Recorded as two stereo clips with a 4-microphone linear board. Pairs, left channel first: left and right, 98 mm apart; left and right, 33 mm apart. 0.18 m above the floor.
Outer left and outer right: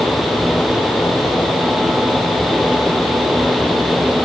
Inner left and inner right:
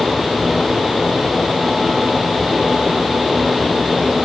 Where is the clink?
No clink in this recording.